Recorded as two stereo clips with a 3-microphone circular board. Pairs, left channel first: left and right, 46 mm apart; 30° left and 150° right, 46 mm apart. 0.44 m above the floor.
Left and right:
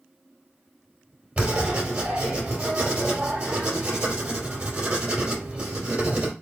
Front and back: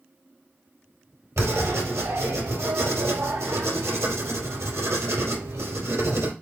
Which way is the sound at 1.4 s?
150° right.